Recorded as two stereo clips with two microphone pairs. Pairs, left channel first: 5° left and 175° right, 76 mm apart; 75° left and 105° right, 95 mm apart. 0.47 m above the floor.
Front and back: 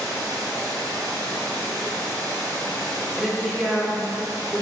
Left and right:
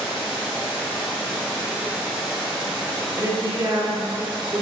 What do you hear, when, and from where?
0.0 s running water: 165° left, 2 m
3.2 s a woman speaking: 90° right, 1.0 m